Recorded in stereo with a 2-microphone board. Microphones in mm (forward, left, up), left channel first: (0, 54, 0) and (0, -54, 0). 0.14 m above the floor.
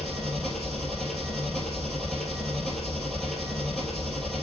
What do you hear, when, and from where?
0.0 s an engine running: centre (ahead or behind), 2.5 m